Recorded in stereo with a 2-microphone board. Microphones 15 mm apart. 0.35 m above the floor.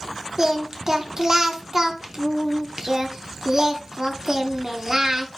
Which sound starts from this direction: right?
Singing, at 0.4 s.